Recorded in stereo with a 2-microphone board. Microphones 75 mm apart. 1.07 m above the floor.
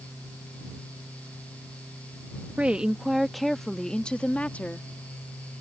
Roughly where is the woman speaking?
Centre.